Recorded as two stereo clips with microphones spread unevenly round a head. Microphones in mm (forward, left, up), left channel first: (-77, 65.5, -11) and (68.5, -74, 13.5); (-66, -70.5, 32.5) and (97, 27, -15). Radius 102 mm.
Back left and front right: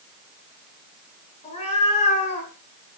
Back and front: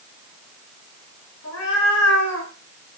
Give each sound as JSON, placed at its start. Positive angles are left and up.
{"t": 1.4, "sound": "a cat meowing", "azimuth_deg": -160, "distance_m": 5.0}